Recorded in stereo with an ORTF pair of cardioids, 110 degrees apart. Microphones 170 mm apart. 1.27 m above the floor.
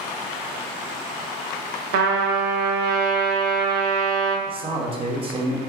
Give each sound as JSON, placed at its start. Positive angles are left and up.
{"t": 1.9, "sound": "a trumpet", "azimuth_deg": -70, "distance_m": 0.6}
{"t": 4.5, "sound": "a man speaking", "azimuth_deg": -30, "distance_m": 0.8}